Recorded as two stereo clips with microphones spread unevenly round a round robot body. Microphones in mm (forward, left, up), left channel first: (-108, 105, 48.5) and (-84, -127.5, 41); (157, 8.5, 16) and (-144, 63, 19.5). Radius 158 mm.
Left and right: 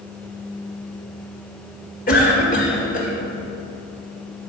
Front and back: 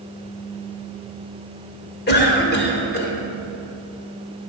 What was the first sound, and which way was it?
A cough, 40° left.